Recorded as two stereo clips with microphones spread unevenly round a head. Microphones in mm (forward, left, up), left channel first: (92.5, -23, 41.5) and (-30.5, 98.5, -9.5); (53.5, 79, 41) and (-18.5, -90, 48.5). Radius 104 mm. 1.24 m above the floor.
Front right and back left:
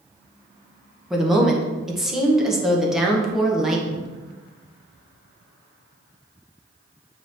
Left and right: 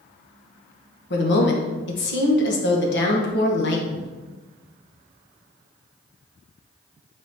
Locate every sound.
1.1 s a woman speaking: 55° left, 1.5 m